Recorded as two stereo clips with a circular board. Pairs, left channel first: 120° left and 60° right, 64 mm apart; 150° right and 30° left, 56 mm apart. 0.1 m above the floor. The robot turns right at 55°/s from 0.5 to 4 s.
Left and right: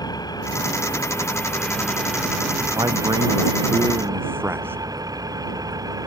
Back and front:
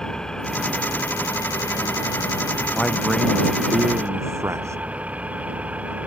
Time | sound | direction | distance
0.0 | an engine running | 130° left | ?
2.7 | a man speaking | 75° right | ?